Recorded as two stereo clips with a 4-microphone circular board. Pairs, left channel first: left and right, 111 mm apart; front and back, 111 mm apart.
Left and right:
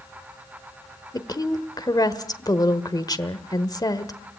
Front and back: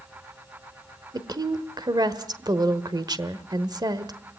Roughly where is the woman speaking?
Behind left.